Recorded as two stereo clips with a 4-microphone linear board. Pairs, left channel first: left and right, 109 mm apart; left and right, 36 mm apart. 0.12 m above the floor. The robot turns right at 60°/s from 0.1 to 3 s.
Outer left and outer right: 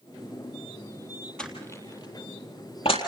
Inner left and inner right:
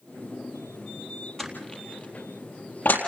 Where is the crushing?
10° left (ahead or behind), 4 m; by 3.0 s 65° left (ahead or behind), 4 m.